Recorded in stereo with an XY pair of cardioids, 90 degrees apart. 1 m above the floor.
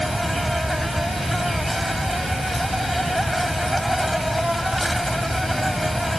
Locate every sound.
0.0 s an insect: 10° right